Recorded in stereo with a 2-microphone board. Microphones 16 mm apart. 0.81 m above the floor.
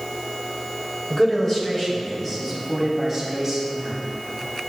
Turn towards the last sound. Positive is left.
turn(degrees=-5)  # may be behind; listen again after turning